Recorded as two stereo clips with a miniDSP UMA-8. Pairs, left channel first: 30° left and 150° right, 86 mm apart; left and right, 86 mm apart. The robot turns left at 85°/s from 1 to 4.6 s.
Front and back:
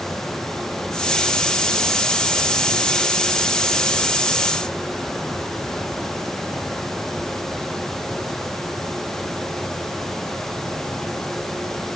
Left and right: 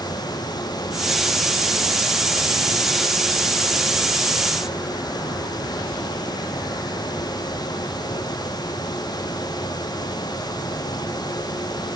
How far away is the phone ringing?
No phone ringing in this recording.